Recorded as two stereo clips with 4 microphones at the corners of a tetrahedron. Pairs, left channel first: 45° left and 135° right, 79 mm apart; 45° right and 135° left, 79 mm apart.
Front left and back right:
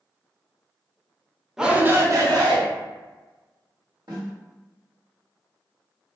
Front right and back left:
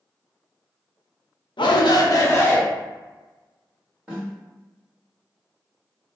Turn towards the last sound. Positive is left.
turn(degrees=-145)